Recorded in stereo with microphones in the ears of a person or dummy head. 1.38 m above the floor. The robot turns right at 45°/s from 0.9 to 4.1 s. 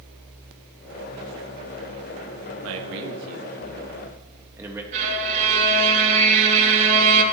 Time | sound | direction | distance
2.6 | a man speaking | 75° right (ahead or behind) | 1.6 m
4.9 | a violin | 40° right (ahead or behind) | 2.5 m